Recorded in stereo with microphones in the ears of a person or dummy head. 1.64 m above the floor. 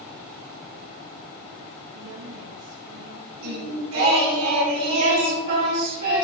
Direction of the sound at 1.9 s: 80° right.